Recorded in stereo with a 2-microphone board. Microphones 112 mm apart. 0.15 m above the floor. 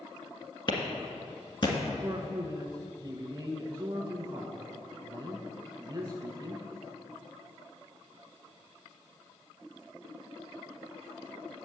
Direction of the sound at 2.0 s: 35° right (ahead or behind).